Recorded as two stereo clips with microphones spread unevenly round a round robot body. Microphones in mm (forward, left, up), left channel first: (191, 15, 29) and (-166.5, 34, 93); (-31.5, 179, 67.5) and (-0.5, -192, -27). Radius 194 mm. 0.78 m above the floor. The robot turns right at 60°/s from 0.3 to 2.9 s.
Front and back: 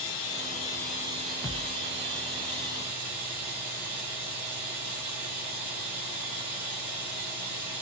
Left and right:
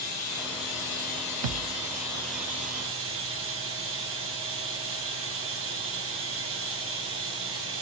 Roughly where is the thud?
Right.